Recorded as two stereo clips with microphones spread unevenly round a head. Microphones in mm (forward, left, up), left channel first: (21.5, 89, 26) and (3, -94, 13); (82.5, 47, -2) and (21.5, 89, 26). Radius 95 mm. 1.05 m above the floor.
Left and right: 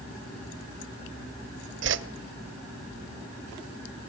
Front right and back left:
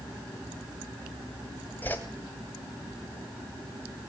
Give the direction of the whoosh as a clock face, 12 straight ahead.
4 o'clock.